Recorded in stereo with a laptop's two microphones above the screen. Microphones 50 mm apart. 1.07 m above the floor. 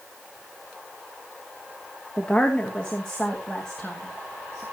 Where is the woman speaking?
20° left (ahead or behind), 1.3 m; by 4.6 s 10° left (ahead or behind), 2.5 m.